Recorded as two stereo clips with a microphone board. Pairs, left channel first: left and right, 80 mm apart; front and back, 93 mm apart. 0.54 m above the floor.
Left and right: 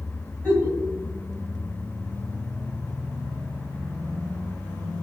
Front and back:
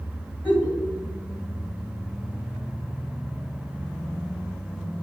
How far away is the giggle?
About 1.5 m.